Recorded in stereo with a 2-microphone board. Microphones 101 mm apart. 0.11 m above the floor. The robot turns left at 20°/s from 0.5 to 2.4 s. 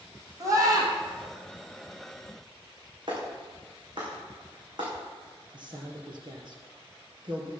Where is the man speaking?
50° right (ahead or behind), 3 m.